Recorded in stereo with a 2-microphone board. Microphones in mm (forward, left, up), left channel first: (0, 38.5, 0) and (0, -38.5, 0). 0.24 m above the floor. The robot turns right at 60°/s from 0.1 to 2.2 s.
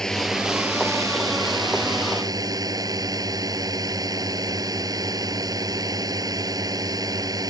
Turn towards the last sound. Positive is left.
turn(degrees=-60)